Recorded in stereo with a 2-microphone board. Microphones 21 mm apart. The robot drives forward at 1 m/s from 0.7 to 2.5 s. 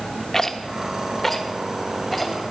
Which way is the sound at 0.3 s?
20° left (ahead or behind).